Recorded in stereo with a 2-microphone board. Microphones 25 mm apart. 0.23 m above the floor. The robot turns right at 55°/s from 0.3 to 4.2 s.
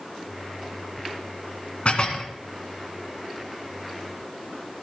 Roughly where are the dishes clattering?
Left.